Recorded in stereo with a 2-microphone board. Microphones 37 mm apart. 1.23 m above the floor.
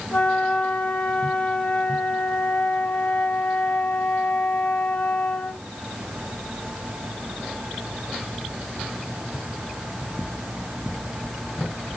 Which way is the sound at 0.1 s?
35° left (ahead or behind).